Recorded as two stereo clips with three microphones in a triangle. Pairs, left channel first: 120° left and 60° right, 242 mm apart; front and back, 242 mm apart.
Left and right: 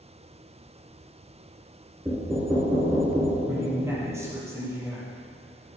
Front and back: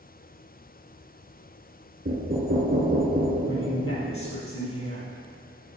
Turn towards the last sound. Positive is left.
turn(degrees=20)